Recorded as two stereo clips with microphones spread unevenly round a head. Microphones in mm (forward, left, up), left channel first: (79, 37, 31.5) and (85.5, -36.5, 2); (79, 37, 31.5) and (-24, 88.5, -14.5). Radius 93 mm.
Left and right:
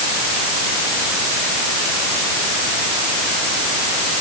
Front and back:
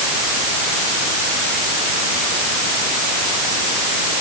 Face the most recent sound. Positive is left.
No sound to turn to.